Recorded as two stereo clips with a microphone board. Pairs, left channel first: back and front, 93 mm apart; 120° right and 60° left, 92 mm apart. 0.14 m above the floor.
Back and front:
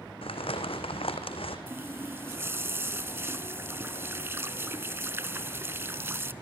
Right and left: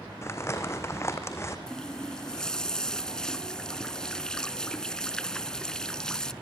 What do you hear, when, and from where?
0.2 s crumpling: straight behind, 2.5 m
1.7 s a running tap: 45° right, 0.9 m